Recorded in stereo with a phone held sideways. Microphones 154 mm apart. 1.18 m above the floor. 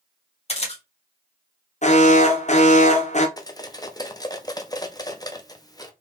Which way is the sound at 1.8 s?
50° left (ahead or behind).